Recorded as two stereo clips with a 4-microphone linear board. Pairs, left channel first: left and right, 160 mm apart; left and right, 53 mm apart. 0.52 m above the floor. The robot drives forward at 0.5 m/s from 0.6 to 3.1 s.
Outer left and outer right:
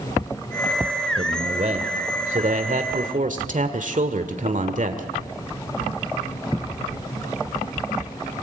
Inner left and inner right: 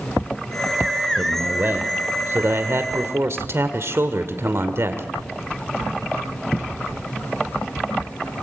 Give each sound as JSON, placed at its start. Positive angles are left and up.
{"t": 1.2, "sound": "a man speaking", "side_deg": -45, "distance_m": 1.8}